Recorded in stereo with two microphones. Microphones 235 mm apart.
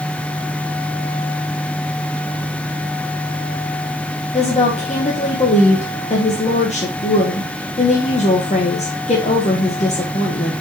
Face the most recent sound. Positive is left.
turn(degrees=30)  # may be behind; listen again after turning